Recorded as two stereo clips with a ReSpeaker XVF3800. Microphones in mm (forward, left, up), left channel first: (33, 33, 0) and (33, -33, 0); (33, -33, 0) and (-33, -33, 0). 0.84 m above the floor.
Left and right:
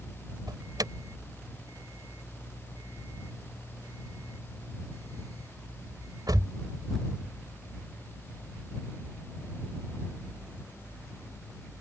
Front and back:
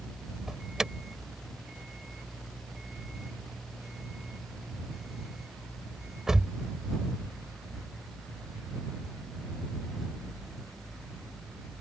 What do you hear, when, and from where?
0.5 s an alarm: 95° right